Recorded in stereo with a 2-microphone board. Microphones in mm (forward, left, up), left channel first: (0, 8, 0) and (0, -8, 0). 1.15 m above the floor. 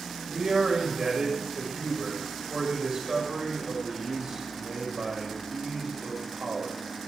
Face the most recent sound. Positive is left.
turn(degrees=-50)  # may be behind; listen again after turning